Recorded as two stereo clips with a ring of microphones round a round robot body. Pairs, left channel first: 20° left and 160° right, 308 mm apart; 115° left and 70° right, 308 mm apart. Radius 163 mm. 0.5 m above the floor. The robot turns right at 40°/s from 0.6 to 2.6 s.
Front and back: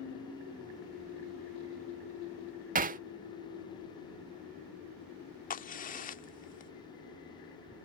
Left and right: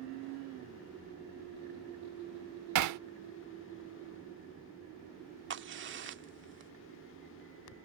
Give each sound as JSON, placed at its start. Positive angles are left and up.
{"t": 2.8, "sound": "hammering", "azimuth_deg": -95}
{"t": 5.5, "sound": "a crack", "azimuth_deg": -30}